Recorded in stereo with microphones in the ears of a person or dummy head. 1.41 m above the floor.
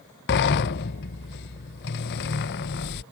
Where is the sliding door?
55° left (ahead or behind).